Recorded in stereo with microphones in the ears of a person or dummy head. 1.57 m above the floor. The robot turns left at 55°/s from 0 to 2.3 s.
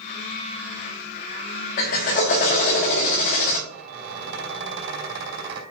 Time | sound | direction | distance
1.8 | a drill | 35° left (ahead or behind) | 1.3 m
3.7 | a squeak | 60° right (ahead or behind) | 3.5 m